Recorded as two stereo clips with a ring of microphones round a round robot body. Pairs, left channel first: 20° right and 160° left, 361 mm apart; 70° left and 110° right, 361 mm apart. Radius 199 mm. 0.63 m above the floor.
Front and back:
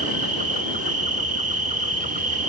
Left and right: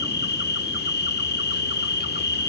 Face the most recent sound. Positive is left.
turn(degrees=105)